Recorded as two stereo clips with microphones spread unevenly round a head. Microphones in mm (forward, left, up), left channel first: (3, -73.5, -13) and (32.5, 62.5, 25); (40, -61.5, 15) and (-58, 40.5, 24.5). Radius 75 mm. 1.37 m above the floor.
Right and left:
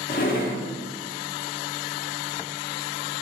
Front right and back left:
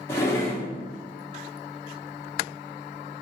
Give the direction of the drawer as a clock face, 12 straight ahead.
4 o'clock.